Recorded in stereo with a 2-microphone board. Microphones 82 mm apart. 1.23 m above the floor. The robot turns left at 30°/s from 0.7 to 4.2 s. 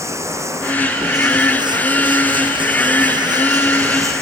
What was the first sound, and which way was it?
Running water, 40° right.